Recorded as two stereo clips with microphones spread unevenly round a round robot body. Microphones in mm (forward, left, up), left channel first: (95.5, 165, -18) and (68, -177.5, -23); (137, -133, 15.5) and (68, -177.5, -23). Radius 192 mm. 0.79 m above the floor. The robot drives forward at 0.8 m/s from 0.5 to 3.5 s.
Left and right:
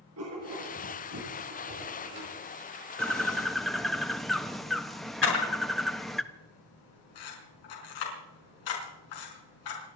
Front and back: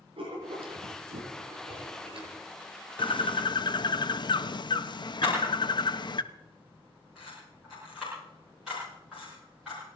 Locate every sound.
0.2 s writing: 150° right, 4.5 m; by 2.4 s 155° right, 5.5 m
3.0 s a bird: 5° right, 1.2 m
5.2 s a camera shutter: 125° left, 5 m